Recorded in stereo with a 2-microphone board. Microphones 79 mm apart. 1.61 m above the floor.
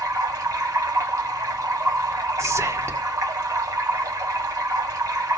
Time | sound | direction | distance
0.0 | running water | 40° right (ahead or behind) | 2.5 m
2.4 | whispering | 40° right (ahead or behind) | 1.3 m